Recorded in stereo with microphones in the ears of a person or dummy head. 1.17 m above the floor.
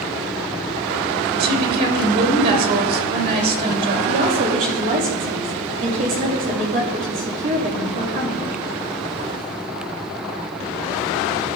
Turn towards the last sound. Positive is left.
turn(degrees=-45)  # may be behind; listen again after turning